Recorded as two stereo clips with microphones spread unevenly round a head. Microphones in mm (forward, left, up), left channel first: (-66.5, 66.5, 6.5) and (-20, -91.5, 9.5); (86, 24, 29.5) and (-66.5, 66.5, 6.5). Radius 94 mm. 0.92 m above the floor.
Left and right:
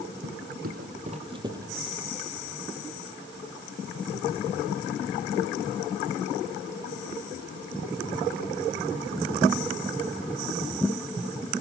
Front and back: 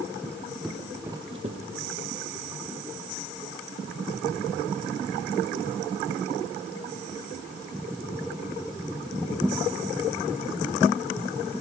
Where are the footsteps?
90° right, 3 m; by 2.0 s 160° right, 1.9 m.